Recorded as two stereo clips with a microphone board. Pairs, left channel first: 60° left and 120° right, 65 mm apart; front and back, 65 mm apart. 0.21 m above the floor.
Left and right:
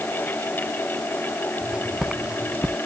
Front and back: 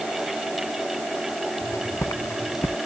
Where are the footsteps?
40° right; by 2.8 s 45° right.